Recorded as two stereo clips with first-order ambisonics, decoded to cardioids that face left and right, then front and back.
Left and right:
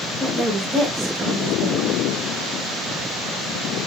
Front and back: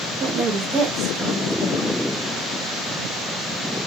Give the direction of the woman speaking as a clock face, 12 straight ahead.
6 o'clock.